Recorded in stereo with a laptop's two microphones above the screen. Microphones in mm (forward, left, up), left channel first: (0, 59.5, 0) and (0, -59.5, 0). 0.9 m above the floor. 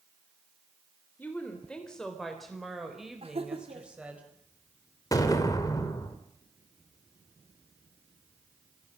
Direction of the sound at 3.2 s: 55° right (ahead or behind).